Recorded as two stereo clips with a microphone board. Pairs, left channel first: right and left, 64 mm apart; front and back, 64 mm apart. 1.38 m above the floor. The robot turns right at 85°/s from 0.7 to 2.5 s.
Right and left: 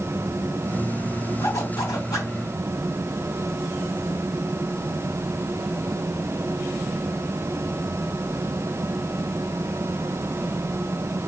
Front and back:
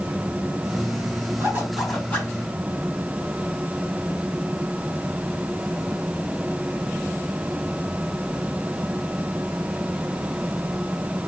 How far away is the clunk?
I don't hear a clunk.